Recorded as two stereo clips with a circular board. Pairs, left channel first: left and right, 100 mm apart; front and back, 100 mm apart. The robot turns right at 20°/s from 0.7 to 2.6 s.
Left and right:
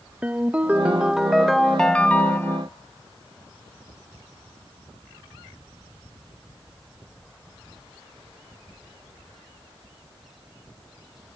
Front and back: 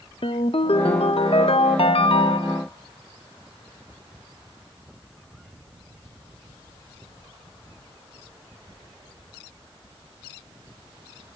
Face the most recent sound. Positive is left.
turn(degrees=25)